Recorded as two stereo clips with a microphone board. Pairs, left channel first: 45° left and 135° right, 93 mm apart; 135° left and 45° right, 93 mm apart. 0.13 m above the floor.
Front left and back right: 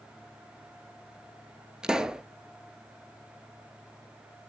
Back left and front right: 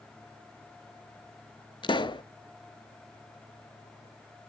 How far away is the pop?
About 0.6 m.